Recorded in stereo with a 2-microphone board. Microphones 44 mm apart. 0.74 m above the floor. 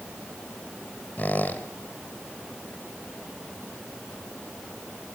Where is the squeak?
40° left (ahead or behind), 1.5 m.